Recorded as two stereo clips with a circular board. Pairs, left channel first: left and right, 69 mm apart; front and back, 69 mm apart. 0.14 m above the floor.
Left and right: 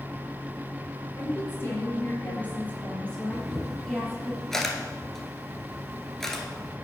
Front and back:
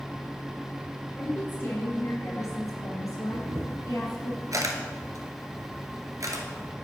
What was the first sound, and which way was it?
A woman speaking, 50° left.